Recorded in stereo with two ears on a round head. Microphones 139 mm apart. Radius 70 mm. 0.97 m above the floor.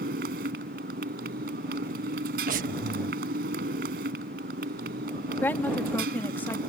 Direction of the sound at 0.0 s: 65° right (ahead or behind).